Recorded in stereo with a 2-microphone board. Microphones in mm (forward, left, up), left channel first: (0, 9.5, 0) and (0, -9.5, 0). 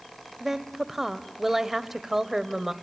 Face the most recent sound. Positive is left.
turn(degrees=-15)  # may be behind; listen again after turning